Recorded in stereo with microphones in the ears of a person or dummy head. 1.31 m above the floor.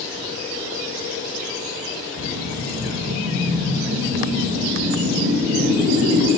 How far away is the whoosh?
About 2 m.